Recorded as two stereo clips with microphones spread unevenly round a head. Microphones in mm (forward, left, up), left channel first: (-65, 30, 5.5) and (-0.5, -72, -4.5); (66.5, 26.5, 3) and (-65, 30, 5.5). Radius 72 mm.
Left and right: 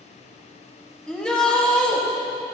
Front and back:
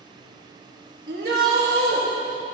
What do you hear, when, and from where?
1.1 s a shout: 155° right, 1.8 m